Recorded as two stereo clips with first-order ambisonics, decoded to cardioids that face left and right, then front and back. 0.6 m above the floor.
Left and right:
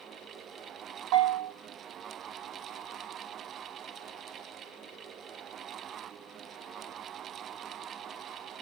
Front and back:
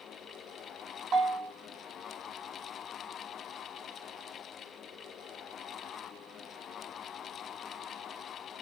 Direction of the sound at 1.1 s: 115° right.